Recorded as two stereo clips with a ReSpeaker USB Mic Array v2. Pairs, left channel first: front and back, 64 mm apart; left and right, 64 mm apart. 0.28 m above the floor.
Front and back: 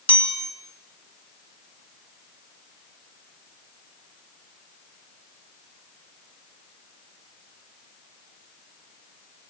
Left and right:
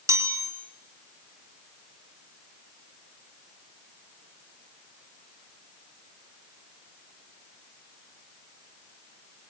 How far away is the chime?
About 3.5 m.